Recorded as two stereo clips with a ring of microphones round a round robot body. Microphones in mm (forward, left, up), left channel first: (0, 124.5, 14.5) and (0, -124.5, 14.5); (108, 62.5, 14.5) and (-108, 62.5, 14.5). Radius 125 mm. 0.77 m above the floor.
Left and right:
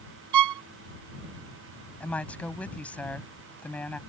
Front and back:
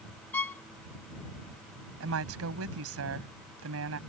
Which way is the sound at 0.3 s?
80° right.